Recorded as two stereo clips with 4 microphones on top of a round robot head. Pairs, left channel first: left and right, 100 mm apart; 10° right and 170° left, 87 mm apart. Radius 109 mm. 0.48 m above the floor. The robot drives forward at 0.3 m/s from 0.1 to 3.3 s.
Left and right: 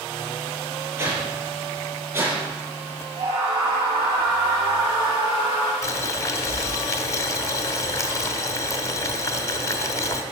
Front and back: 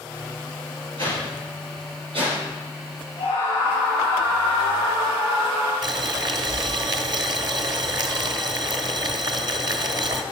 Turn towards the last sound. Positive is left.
turn(degrees=145)